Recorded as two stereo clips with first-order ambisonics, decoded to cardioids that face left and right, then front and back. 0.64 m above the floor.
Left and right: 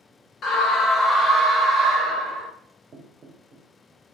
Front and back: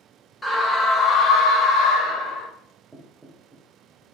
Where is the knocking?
100° right, 0.6 m.